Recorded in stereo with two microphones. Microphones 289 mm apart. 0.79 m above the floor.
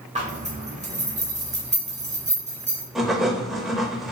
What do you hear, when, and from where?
0.1 s a zipper: 25° right (ahead or behind), 0.9 m
3.0 s writing: centre (ahead or behind), 1.0 m